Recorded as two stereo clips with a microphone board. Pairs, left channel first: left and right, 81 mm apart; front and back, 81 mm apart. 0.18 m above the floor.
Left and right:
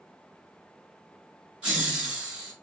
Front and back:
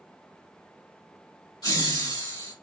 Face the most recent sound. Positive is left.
turn(degrees=-15)